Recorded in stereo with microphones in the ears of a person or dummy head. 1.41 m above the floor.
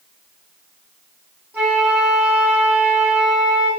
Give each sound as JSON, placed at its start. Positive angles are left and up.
{"t": 1.5, "sound": "a flute", "side_deg": -10, "distance_m": 5.0}